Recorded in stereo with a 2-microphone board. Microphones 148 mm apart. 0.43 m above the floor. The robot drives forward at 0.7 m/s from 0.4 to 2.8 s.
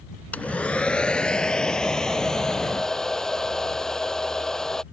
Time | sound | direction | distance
0.3 | a hair dryer | 10° left (ahead or behind) | ?